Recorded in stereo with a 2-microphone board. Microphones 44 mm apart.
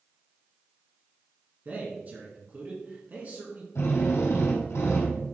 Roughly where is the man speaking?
Right.